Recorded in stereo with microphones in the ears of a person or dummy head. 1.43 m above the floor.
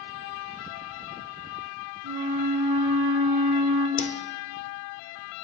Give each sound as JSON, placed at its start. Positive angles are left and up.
{"t": 2.0, "sound": "a flute", "side_deg": -45, "distance_m": 1.7}
{"t": 4.0, "sound": "a whoosh", "side_deg": 40, "distance_m": 0.5}